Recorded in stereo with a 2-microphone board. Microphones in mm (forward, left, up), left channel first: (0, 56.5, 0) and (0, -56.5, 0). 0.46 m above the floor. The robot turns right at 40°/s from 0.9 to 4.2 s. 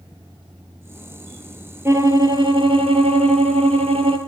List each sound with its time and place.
1.9 s a violin: 155° right, 4.5 m; by 4.2 s 60° right, 4.5 m